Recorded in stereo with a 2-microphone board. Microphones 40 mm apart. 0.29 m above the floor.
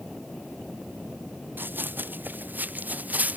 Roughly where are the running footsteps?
Right.